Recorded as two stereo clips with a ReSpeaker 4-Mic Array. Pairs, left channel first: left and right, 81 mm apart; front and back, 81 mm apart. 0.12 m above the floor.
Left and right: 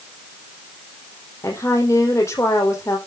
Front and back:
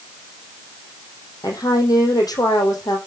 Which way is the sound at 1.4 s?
40° left.